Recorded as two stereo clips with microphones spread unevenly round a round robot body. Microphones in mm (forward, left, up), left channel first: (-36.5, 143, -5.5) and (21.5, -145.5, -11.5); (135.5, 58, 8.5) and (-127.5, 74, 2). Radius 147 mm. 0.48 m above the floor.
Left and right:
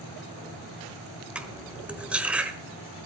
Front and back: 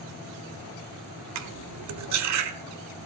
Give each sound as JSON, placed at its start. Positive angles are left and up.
{"t": 1.4, "sound": "cutlery clinking", "azimuth_deg": -165, "distance_m": 1.1}